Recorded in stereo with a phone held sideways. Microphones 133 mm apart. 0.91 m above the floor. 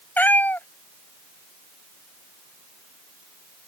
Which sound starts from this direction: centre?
A cat meowing, at 0.2 s.